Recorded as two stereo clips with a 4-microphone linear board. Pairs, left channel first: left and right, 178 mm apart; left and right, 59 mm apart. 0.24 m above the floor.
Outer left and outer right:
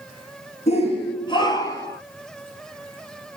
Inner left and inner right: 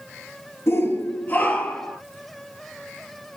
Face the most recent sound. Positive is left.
turn(degrees=15)  # may be behind; listen again after turning